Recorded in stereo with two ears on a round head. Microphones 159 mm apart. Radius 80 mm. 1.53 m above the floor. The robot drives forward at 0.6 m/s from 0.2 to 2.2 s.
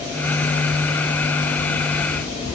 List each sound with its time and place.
Only background noise.